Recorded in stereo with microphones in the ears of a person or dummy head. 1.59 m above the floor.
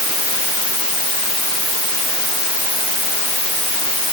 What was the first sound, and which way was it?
Only background noise.